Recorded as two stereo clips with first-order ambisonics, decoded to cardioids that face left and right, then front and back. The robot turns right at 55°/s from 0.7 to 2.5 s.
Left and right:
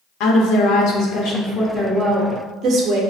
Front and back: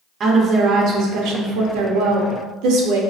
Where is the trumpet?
I don't hear a trumpet.